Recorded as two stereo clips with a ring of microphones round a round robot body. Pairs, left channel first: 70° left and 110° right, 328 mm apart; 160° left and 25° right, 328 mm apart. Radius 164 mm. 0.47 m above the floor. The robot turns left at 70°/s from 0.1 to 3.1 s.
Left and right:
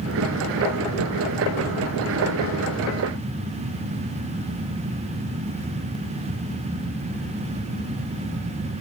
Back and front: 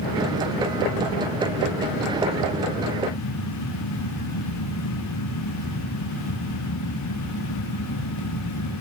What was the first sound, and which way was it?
Only background noise.